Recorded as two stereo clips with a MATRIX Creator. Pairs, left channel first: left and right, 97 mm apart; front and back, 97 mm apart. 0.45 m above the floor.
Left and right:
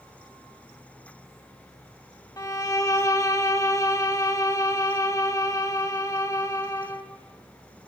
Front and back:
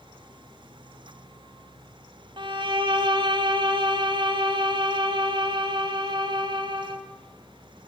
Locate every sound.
2.4 s a violin: 145° left, 1.0 m